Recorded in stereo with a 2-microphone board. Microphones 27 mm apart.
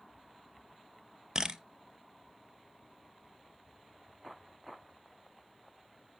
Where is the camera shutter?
30° right (ahead or behind), 0.8 m.